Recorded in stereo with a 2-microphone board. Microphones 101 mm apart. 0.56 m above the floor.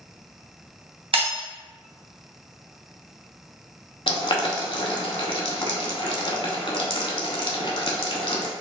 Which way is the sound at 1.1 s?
60° right (ahead or behind).